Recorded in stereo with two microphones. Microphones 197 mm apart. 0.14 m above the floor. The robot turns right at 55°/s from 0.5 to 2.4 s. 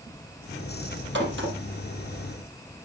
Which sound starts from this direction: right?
A crack, at 1.1 s.